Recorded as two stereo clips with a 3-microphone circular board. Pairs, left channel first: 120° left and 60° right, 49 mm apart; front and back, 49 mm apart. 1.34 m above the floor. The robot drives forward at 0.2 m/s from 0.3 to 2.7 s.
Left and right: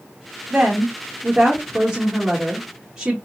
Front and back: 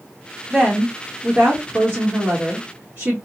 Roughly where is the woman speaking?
Right.